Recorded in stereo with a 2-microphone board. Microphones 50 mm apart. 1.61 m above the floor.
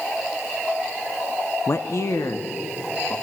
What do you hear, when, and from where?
1.7 s a man speaking: 55° left (ahead or behind), 0.6 m; by 3.1 s 80° left, 2.5 m